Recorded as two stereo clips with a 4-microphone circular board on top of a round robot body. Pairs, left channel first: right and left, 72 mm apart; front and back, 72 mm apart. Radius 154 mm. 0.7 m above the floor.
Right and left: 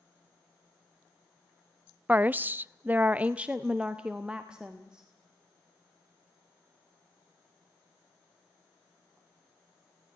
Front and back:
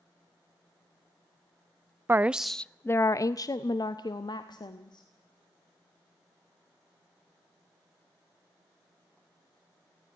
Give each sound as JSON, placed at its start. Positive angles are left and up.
{"t": 2.1, "sound": "a woman speaking", "azimuth_deg": 145, "distance_m": 0.5}